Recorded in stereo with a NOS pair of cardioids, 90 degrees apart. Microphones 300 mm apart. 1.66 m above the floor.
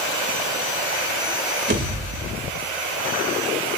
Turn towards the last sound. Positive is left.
turn(degrees=-35)